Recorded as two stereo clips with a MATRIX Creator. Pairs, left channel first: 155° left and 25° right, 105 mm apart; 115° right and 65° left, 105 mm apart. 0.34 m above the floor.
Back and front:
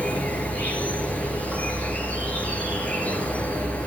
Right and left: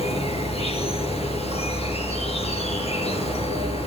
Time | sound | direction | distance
0.0 | an insect | 125° right | 3.5 m